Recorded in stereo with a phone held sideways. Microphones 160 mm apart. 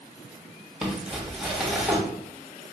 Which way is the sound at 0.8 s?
Centre (ahead or behind).